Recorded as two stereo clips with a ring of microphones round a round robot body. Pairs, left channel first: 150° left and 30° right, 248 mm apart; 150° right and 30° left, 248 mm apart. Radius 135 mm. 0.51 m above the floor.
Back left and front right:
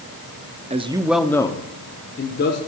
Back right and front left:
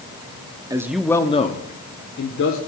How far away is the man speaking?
About 0.9 m.